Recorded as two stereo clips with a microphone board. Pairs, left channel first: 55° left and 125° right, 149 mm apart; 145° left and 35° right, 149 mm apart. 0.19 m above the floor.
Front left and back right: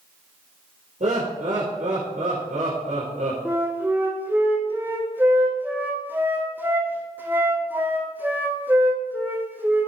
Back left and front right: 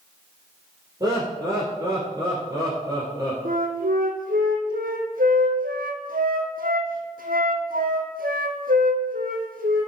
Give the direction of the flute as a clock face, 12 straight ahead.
2 o'clock.